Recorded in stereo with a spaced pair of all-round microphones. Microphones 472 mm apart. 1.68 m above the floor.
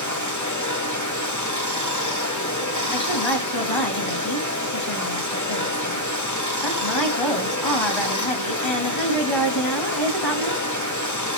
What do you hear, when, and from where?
0.0 s running water: 35° left (ahead or behind), 2 m
2.9 s a woman speaking: 65° left (ahead or behind), 2.5 m